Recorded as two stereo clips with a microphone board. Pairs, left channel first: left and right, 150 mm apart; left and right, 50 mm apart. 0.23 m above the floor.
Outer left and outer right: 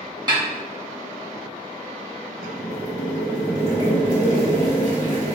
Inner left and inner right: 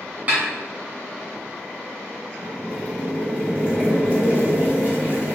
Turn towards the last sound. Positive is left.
turn(degrees=-35)  # may be behind; listen again after turning